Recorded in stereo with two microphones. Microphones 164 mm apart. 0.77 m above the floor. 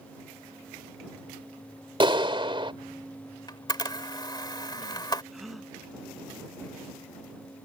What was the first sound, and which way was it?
A clap, 30° right (ahead or behind).